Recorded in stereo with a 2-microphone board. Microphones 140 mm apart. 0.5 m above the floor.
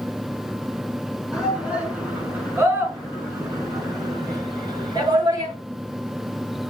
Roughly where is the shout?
Centre.